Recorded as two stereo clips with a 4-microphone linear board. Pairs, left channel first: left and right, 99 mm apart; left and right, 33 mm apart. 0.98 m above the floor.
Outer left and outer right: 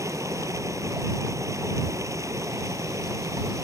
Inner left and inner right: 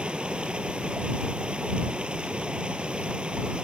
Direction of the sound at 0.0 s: 30° right (ahead or behind).